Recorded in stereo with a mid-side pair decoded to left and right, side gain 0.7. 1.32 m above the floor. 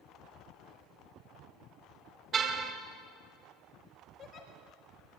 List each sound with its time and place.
2.3 s a car horn: 35° right, 3.5 m
4.2 s a giggle: 45° left, 5.5 m